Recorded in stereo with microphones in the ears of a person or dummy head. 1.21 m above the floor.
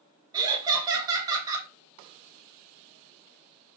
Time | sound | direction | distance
0.3 | laughter | 20° right (ahead or behind) | 0.8 m